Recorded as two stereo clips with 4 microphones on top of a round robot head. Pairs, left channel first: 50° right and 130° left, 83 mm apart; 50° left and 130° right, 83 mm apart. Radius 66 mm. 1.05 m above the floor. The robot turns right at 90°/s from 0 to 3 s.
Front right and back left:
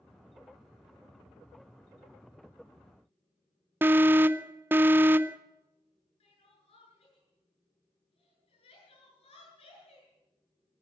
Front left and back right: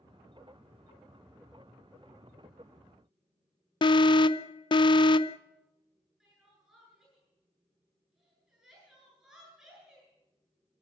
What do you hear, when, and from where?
3.8 s an alarm: 65° left, 0.6 m
6.2 s crying: 45° right, 9 m